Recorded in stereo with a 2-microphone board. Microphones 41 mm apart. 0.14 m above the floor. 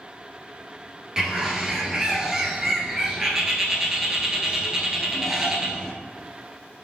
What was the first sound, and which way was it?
A bird, 10° right (ahead or behind).